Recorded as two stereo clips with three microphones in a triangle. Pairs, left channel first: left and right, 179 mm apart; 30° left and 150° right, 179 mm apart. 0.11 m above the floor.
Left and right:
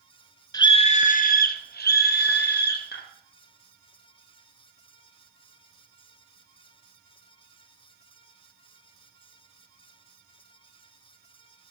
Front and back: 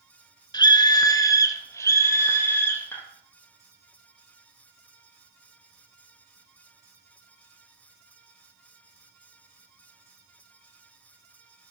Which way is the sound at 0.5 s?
55° left.